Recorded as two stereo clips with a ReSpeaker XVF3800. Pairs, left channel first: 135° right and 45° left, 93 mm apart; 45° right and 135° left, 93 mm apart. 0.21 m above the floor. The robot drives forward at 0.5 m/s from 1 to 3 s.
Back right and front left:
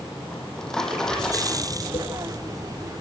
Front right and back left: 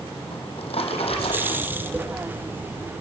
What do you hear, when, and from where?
0.3 s a drawer: 50° right, 4.5 m; by 1.7 s 55° right, 4.5 m
1.9 s tapping: 150° right, 5 m; by 2.0 s 155° right, 5.5 m